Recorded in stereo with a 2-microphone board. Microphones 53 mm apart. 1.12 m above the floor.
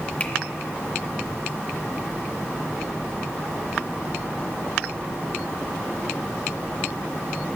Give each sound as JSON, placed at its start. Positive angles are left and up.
{"t": 0.2, "sound": "a finger snap", "side_deg": 30, "distance_m": 0.7}